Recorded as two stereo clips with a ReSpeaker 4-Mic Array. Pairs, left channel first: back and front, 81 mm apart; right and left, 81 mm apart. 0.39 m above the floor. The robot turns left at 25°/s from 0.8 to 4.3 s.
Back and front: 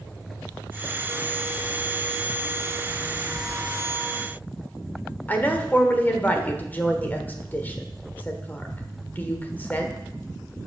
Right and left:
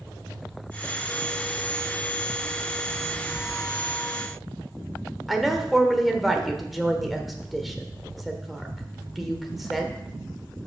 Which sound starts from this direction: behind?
A woman speaking, at 5.3 s.